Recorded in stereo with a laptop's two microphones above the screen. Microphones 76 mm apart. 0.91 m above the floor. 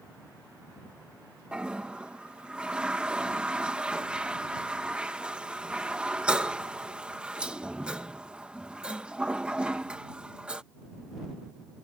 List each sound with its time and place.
1.5 s a toilet flushing: 15° right (ahead or behind)